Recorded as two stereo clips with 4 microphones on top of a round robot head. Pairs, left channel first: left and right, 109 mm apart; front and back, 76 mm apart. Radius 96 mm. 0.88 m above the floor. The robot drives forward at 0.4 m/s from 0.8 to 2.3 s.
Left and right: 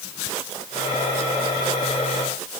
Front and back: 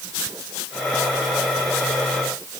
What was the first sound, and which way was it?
Only background noise.